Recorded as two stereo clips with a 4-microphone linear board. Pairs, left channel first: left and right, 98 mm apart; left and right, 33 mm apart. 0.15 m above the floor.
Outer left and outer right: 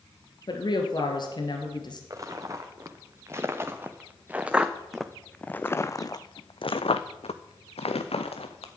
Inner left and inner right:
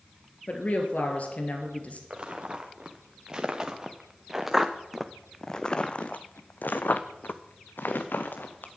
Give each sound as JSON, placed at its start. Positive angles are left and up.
{"t": 0.5, "sound": "a woman speaking", "side_deg": 50, "distance_m": 2.5}
{"t": 2.1, "sound": "footsteps", "side_deg": -35, "distance_m": 2.0}